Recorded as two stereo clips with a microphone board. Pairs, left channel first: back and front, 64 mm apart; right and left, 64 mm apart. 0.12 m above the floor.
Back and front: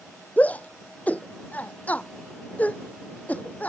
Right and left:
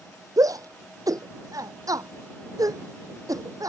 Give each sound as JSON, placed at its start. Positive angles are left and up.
{"t": 0.4, "sound": "a shout", "azimuth_deg": 115}